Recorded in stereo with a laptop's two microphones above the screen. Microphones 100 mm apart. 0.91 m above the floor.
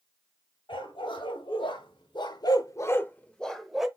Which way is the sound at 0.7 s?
55° left (ahead or behind).